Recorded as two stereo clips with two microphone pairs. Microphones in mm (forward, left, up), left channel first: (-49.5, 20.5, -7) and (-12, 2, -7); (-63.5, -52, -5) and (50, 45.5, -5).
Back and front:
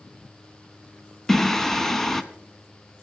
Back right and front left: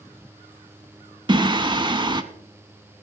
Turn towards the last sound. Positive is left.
turn(degrees=80)